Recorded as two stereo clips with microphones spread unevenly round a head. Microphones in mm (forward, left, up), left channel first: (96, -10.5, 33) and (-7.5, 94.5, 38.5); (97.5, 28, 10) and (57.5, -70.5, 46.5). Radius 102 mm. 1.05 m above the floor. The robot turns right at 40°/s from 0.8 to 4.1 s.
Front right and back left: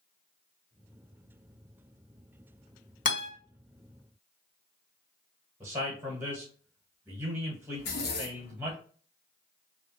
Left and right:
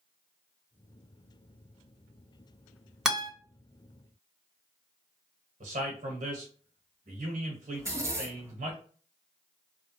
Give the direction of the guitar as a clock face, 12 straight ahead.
1 o'clock.